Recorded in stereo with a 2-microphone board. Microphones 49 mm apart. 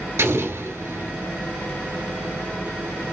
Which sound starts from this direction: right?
An explosion, at 0.2 s.